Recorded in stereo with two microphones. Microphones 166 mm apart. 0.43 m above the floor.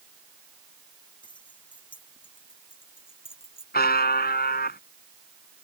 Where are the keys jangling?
30° left (ahead or behind); by 3.6 s 35° left (ahead or behind).